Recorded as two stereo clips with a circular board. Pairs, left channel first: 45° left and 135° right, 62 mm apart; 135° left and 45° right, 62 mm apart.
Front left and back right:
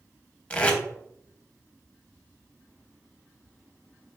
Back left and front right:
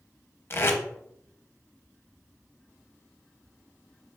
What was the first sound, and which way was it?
Tape being pulled, 105° left.